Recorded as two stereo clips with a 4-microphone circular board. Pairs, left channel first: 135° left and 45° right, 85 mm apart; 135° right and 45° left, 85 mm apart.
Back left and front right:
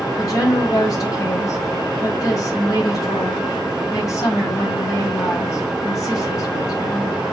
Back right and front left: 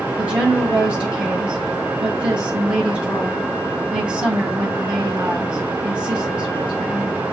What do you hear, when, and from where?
0.2 s a woman speaking: 120° left, 2 m